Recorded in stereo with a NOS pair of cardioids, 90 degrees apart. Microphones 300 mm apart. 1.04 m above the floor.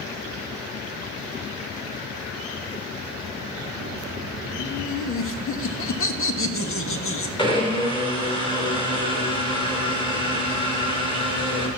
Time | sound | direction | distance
4.6 | laughter | 45° left | 1.5 m
7.4 | a blender | 15° left | 4.5 m